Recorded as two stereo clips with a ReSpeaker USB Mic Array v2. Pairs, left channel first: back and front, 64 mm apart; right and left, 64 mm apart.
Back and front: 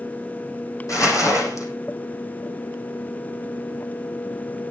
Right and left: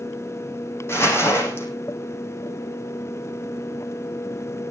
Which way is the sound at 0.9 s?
140° right.